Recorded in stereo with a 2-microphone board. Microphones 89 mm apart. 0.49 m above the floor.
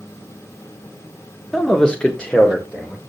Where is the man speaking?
5° left (ahead or behind), 0.7 m; by 3.0 s 15° left (ahead or behind), 1.4 m.